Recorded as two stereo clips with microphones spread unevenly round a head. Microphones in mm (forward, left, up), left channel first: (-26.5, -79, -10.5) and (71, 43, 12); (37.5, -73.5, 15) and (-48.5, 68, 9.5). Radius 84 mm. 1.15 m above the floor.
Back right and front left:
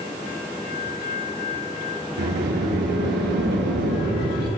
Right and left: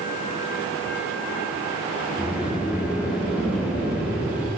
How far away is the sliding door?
About 8 m.